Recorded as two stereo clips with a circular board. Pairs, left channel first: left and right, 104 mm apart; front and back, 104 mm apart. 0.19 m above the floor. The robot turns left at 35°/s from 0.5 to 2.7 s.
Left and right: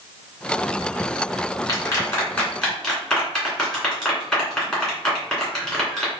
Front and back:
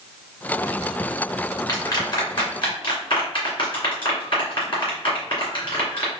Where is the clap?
45° left, 2.0 m; by 6.1 s 5° left, 2.0 m.